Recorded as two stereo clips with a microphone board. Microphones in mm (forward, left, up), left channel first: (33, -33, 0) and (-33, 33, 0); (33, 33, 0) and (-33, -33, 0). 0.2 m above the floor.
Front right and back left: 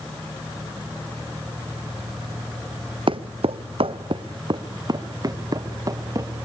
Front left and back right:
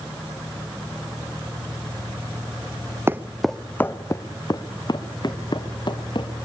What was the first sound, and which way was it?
Footsteps, 160° left.